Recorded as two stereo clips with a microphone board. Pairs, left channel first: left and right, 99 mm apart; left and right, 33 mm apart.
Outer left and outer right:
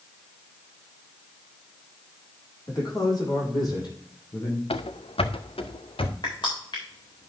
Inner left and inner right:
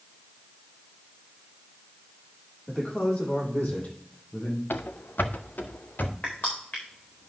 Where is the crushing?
55° left (ahead or behind), 4 m.